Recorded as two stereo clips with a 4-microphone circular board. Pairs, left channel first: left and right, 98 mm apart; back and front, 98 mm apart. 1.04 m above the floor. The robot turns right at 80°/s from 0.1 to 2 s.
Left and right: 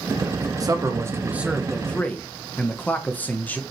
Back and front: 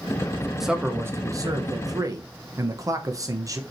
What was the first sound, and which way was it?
A man speaking, 85° right.